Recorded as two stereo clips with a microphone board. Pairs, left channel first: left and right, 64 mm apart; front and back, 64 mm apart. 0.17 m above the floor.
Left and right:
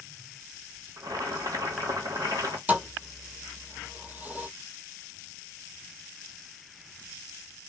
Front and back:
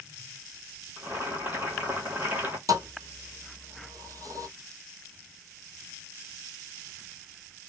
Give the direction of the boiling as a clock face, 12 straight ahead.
4 o'clock.